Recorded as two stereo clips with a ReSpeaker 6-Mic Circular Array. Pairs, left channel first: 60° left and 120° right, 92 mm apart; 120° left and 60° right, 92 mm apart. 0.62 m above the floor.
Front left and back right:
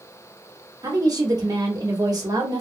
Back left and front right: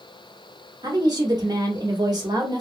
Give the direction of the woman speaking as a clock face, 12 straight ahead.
3 o'clock.